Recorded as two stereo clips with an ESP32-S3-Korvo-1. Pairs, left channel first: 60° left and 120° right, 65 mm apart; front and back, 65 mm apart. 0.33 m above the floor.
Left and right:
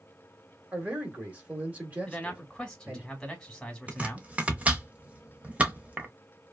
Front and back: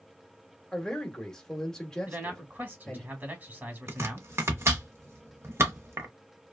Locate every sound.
0.7 s a man speaking: 75° right, 1.1 m
2.1 s a man speaking: 135° left, 1.2 m
3.9 s chopping: straight behind, 0.7 m